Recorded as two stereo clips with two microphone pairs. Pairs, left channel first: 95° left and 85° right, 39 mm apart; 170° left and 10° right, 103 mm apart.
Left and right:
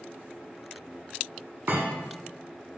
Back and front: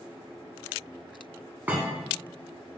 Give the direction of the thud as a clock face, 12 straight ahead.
3 o'clock.